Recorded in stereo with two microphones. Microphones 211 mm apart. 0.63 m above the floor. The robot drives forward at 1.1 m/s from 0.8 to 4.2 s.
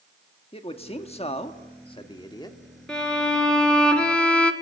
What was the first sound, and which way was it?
A man speaking, 30° left (ahead or behind).